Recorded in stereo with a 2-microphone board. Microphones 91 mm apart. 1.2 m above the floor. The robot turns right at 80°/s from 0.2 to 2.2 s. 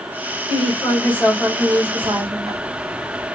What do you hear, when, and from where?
0.5 s a woman speaking: 110° left, 2 m; by 2.5 s 110° right, 2 m
2.0 s ticking: 70° right (ahead or behind), 1.4 m; by 3.3 s 80° right, 1.4 m